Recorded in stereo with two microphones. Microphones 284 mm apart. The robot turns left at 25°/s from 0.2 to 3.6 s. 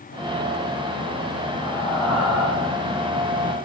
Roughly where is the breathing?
Centre.